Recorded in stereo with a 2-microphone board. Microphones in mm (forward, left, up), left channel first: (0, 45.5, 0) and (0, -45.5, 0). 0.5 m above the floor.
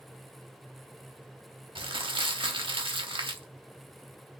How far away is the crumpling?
About 0.6 m.